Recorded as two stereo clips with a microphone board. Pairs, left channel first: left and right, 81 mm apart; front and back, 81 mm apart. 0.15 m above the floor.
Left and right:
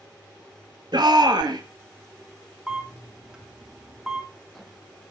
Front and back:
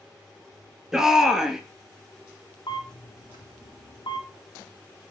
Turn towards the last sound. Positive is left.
turn(degrees=-10)